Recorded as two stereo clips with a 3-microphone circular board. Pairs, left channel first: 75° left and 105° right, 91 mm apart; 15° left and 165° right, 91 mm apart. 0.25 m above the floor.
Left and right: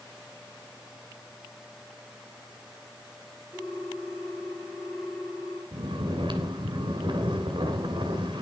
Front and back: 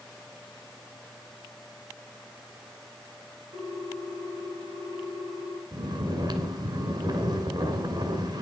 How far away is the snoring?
About 1.9 m.